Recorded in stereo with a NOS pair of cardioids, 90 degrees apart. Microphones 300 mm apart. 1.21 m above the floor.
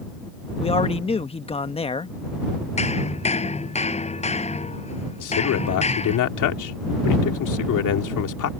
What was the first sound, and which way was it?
A man speaking, 20° left.